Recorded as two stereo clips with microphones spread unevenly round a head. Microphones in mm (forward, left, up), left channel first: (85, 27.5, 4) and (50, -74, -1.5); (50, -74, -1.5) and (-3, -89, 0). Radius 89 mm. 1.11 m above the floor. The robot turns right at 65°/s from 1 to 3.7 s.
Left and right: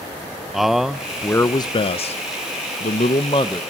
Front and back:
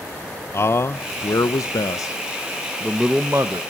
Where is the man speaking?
25° right, 0.7 m; by 3.6 s 145° left, 0.7 m.